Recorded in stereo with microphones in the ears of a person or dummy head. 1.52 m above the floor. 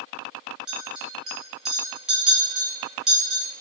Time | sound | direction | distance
0.7 | a clink | 5° right (ahead or behind) | 0.9 m